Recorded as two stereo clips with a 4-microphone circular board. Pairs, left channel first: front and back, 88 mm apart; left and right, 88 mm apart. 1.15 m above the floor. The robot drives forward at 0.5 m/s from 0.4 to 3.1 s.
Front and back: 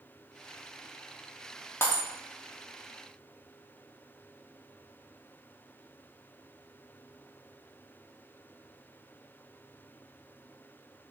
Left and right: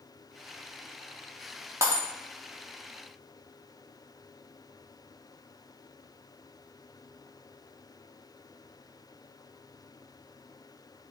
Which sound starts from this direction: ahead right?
Breaking glass, at 1.8 s.